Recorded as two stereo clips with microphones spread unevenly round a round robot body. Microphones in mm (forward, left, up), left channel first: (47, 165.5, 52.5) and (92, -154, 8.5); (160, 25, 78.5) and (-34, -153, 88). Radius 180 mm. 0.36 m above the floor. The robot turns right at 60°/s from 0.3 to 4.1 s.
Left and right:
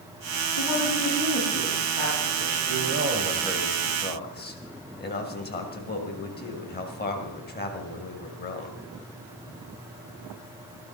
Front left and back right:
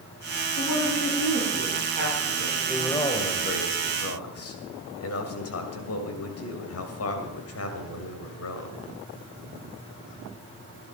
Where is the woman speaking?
130° left, 8.5 m; by 3.0 s 85° right, 8.5 m.